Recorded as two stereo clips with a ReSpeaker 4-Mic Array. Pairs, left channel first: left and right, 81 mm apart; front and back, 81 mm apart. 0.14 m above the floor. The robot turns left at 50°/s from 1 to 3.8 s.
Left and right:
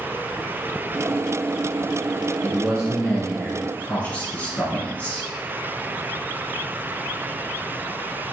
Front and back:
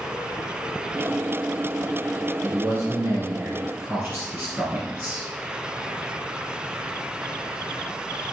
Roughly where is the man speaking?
Behind right.